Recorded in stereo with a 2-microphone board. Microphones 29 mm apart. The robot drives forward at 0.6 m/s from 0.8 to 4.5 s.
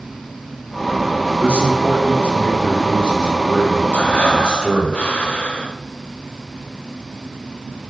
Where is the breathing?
65° left (ahead or behind), 1.0 m; by 5.8 s 50° left (ahead or behind), 1.2 m.